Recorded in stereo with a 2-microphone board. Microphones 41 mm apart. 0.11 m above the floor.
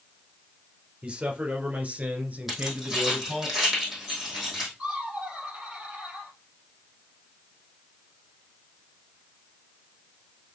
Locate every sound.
1.0 s a man speaking: 25° right (ahead or behind), 2.5 m; by 3.5 s 40° right (ahead or behind), 2 m
2.5 s keys jangling: 5° right (ahead or behind), 3.5 m
4.8 s laughter: 15° right (ahead or behind), 3 m